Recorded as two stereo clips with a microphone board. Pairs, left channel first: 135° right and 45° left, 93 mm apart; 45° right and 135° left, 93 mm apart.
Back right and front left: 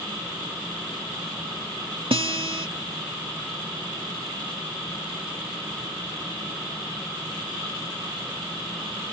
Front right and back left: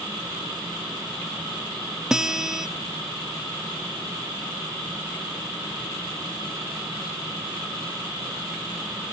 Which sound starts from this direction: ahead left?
A guitar, at 2.1 s.